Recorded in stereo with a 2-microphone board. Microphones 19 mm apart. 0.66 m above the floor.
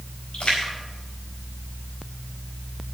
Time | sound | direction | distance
0.3 | a splash | 55° left (ahead or behind) | 4.5 m